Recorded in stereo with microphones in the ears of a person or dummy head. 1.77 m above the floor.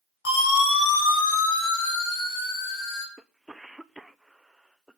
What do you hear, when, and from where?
0.2 s a siren: 70° left (ahead or behind), 8.5 m; by 3.1 s 60° left (ahead or behind), 6.5 m
3.2 s a cough: 5° right (ahead or behind), 0.8 m